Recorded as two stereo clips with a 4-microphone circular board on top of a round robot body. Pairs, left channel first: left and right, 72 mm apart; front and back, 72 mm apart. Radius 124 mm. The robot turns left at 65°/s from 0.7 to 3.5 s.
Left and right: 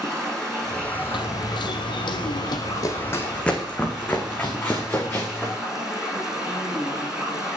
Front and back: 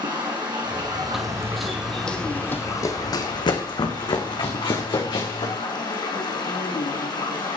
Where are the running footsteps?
95° left, 0.9 m; by 5.5 s 25° left, 3.5 m.